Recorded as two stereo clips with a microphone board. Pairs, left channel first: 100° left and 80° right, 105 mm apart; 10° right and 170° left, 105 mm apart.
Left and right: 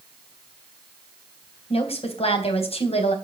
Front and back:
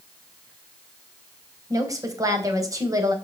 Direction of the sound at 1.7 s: 115° left.